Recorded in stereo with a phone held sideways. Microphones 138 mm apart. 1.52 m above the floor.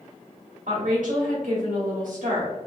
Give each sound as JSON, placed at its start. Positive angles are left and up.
{"t": 0.7, "sound": "a woman speaking", "side_deg": -70, "distance_m": 1.4}